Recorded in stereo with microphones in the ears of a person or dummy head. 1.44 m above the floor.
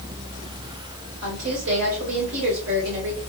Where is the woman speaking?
80° right, 1.5 m.